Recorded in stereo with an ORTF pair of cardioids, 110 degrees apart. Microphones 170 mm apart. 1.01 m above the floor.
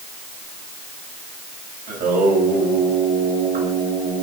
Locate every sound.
1.9 s singing: 60° right, 3.5 m